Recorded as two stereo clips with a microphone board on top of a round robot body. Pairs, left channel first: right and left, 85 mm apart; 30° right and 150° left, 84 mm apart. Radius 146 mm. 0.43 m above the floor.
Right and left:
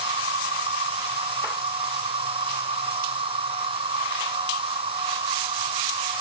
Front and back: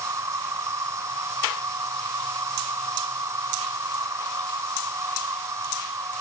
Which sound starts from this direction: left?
An insect, at 0.0 s.